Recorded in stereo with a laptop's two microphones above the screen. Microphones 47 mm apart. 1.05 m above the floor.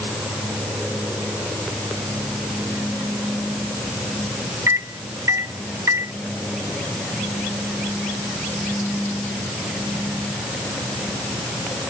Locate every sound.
4.7 s a microwave: 80° right